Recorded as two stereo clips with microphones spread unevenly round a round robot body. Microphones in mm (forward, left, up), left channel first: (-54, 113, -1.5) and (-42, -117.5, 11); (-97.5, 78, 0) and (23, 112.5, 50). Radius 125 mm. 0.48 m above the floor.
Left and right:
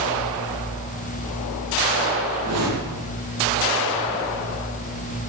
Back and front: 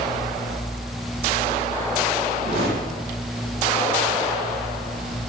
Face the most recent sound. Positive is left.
turn(degrees=-50)